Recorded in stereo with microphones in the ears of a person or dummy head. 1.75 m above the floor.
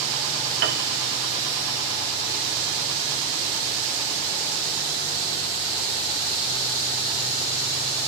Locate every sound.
0.6 s a piano: 70° right (ahead or behind), 2.5 m